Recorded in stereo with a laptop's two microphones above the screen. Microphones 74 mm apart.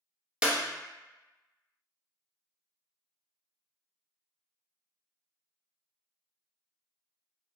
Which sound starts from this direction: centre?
A clap, at 0.4 s.